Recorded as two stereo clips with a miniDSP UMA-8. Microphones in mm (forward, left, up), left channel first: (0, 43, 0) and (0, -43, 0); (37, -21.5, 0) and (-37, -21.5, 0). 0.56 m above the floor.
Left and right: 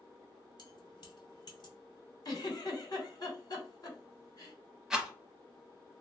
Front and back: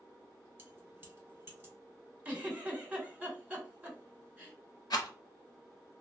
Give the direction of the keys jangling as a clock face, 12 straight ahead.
8 o'clock.